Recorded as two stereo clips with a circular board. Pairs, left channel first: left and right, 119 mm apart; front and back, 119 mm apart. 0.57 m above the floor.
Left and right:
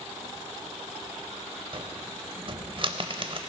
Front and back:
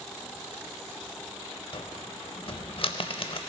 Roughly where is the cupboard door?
Ahead right.